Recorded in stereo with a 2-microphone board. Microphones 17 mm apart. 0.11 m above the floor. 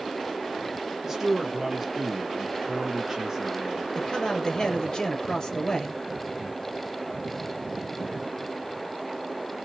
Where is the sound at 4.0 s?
35° left (ahead or behind), 1.9 m.